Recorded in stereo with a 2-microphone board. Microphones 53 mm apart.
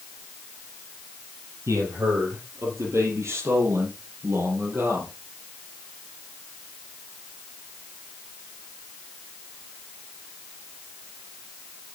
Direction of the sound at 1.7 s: 70° right (ahead or behind).